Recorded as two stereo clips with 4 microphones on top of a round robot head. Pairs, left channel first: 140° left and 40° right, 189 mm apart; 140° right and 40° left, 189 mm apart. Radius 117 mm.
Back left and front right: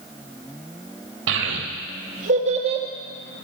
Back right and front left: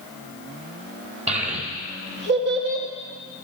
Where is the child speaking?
15° right, 1.5 m; by 2.9 s 25° left, 1.6 m.